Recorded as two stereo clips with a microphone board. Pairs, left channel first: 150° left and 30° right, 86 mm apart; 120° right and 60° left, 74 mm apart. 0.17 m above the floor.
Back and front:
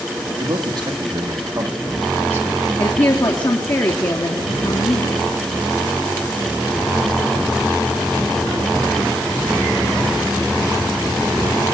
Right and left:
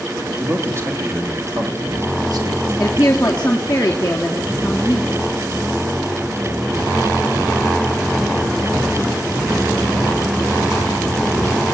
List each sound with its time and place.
0.4 s a man speaking: 5° left, 5 m; by 2.7 s 35° left, 5.5 m
2.8 s a woman speaking: 170° left, 2.5 m